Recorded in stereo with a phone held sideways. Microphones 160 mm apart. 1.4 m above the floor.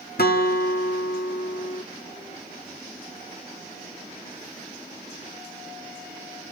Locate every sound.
0.2 s a guitar: 75° left (ahead or behind), 1.2 m